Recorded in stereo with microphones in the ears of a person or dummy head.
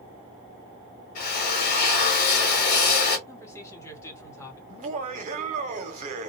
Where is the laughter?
35° right (ahead or behind), 0.7 m.